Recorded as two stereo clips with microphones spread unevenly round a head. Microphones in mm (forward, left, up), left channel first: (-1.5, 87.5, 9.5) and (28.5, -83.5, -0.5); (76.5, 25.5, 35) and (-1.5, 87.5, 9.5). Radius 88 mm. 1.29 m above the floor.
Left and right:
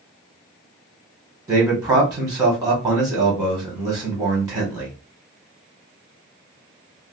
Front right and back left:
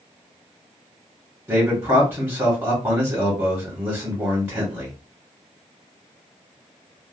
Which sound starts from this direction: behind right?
A man speaking, at 1.5 s.